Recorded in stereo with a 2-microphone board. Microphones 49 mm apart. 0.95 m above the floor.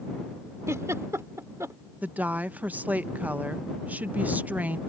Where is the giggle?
85° right.